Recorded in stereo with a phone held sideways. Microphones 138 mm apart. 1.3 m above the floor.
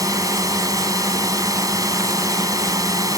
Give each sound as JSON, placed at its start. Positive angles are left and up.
{"t": 0.0, "sound": "a drone", "side_deg": -25}